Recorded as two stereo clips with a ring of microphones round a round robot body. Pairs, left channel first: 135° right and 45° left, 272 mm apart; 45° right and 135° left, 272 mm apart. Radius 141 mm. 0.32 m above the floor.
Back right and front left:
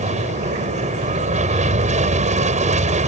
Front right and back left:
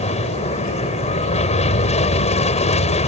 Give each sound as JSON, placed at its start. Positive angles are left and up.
{"t": 0.0, "sound": "an aircraft", "azimuth_deg": 0}